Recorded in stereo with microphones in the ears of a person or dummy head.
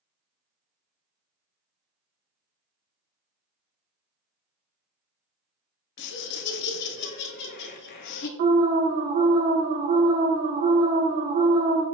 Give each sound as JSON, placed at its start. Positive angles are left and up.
{"t": 6.0, "sound": "laughter", "side_deg": 55, "distance_m": 0.6}
{"t": 8.4, "sound": "an alarm", "side_deg": -45, "distance_m": 0.7}